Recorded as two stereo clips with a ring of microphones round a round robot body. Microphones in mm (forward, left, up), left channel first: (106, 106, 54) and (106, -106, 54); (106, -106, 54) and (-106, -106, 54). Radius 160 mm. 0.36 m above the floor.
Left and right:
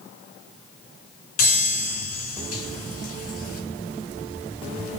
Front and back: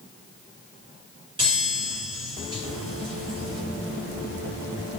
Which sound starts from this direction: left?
A chime, at 1.4 s.